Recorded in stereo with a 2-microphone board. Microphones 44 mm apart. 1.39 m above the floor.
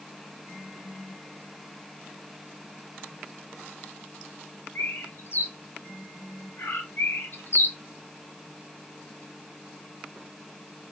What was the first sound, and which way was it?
A bird, 60° left (ahead or behind).